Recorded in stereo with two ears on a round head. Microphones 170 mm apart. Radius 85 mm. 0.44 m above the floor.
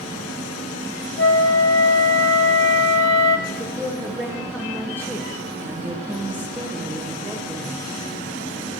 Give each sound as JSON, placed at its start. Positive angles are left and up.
{"t": 1.2, "sound": "a flute", "side_deg": 65, "distance_m": 1.0}
{"t": 3.5, "sound": "a woman speaking", "side_deg": -15, "distance_m": 1.6}